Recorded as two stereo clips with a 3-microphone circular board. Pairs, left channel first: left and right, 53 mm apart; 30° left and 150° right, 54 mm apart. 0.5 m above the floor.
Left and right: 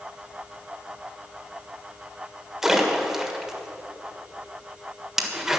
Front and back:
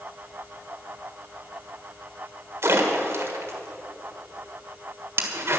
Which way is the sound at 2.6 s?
170° right.